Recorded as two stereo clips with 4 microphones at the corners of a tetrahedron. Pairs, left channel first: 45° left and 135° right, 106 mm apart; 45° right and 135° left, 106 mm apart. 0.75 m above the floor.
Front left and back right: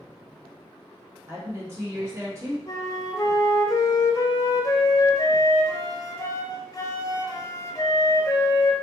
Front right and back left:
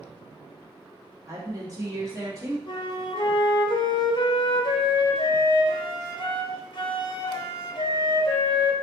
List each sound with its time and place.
1.3 s a woman speaking: 175° left, 1.3 m
2.7 s a flute: 10° right, 0.5 m